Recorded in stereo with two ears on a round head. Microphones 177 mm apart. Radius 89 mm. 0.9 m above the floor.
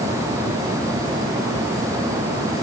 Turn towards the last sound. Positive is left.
No sound to turn to.